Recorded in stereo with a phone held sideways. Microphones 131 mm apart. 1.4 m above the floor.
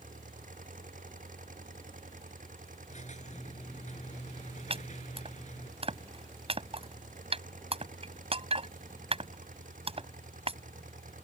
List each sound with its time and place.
0.0 s an engine running: 85° right
2.9 s a squeak: 65° left (ahead or behind)
4.7 s chopping: 45° right (ahead or behind)